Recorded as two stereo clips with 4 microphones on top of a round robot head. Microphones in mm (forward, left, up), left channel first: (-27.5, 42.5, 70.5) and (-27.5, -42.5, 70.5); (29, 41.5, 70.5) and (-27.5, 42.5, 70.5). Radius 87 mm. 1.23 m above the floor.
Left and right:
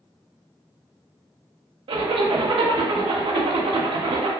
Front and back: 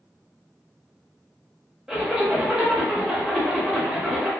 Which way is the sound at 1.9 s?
105° right.